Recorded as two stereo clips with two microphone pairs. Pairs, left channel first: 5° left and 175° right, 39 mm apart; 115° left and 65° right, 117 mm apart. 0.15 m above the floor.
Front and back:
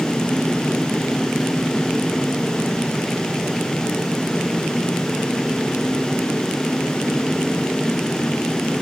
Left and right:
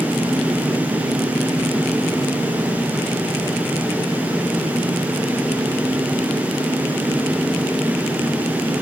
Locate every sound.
Only background noise.